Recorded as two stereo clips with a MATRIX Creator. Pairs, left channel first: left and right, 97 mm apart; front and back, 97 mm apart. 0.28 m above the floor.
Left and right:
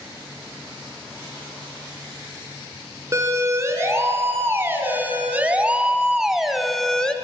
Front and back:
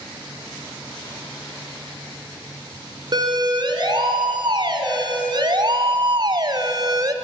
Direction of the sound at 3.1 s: 145° right.